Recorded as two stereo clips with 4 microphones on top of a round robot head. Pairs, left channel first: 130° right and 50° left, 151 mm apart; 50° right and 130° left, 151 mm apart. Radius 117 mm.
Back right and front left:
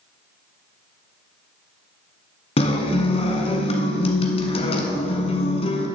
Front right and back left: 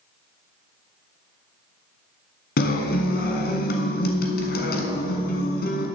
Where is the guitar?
75° right, 1.1 m.